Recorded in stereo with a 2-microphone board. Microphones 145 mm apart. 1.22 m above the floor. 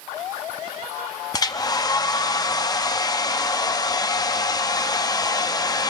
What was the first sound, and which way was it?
A hair dryer, 25° left (ahead or behind).